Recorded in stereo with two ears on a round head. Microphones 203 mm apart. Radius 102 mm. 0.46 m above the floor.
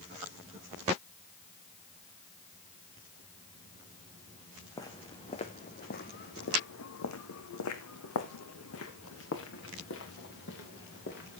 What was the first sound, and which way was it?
Footsteps, 15° left (ahead or behind).